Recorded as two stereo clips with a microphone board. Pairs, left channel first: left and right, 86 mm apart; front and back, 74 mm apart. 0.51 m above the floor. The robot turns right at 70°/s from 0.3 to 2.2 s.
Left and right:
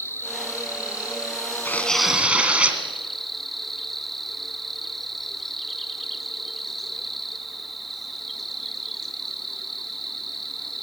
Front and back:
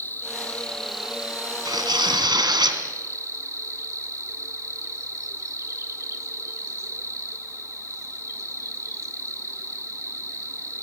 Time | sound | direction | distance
0.0 | an insect | 45° left | 1.5 m
1.6 | tearing paper | 155° left | 2 m